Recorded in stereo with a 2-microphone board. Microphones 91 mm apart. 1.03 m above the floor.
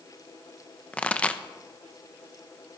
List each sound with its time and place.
0.9 s a pop: 15° left (ahead or behind), 0.6 m